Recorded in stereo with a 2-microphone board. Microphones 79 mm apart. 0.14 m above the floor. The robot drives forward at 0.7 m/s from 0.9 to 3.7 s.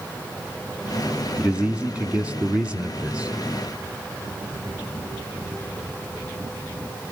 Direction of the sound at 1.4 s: 15° right (ahead or behind).